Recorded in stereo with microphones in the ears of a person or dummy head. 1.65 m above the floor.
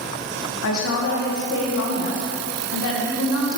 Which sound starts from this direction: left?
A woman speaking, at 0.6 s.